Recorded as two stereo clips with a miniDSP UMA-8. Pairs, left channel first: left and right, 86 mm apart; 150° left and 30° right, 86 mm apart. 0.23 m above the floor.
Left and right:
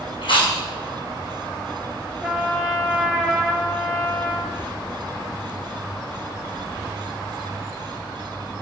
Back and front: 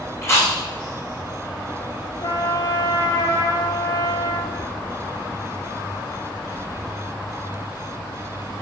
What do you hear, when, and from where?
0.2 s chewing: 95° left, 2.0 m
2.2 s a trumpet: 175° right, 1.0 m